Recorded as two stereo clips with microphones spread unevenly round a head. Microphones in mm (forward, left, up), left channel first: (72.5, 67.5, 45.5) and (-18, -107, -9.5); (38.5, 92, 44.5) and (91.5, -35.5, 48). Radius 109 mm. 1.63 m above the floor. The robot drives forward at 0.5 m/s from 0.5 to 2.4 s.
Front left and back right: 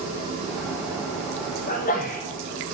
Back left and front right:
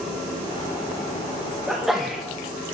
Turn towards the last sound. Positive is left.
turn(degrees=25)